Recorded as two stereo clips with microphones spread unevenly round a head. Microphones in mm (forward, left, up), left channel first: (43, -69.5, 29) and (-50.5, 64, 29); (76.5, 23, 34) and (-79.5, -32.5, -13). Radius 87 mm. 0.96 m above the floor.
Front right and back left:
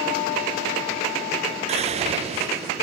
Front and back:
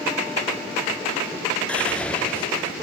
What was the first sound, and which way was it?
Whispering, 120° left.